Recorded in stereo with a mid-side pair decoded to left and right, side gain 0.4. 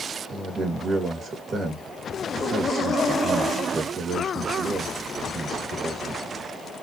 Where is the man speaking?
50° right, 2 m.